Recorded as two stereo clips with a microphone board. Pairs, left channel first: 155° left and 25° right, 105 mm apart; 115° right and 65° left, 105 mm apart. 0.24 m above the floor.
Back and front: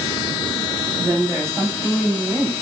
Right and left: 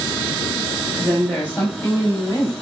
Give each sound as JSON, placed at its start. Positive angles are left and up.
{"t": 1.0, "sound": "a woman speaking", "azimuth_deg": -40, "distance_m": 1.3}